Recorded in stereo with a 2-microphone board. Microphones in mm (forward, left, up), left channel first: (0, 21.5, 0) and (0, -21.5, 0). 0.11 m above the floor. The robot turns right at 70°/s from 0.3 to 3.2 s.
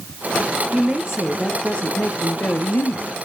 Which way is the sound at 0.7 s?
40° right.